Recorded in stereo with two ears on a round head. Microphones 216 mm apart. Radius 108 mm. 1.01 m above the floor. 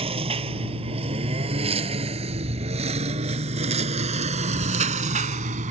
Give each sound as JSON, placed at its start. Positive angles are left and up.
{"t": 0.0, "sound": "a lawn mower", "side_deg": -25}